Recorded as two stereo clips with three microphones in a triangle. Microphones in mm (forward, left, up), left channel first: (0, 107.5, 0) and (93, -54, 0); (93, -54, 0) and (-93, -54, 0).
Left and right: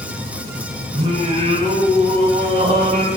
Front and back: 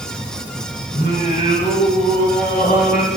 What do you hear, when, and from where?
0.9 s singing: 10° right, 1.8 m